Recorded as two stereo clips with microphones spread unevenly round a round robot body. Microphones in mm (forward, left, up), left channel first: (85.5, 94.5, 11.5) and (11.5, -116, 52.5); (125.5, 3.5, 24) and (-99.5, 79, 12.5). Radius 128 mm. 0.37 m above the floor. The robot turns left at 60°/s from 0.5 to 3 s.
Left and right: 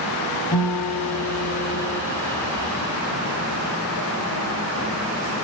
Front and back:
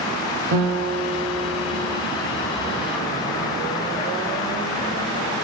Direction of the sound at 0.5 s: 150° left.